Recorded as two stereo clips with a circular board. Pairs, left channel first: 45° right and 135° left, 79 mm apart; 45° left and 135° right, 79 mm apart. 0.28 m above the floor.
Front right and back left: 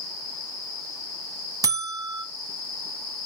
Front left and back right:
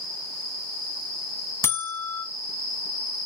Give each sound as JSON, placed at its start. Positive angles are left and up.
{"t": 1.6, "sound": "a buzzer", "azimuth_deg": 100, "distance_m": 0.7}